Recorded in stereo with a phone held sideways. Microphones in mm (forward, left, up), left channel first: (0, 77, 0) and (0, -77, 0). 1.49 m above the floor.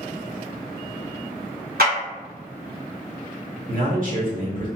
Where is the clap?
75° right (ahead or behind), 1.9 m.